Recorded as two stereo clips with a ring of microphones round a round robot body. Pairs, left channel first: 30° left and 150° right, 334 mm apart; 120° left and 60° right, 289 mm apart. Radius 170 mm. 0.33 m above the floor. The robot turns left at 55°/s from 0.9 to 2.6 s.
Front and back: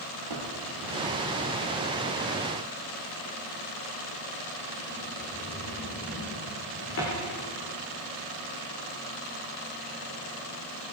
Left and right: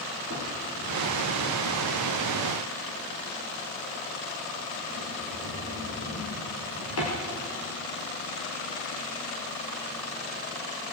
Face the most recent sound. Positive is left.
turn(degrees=85)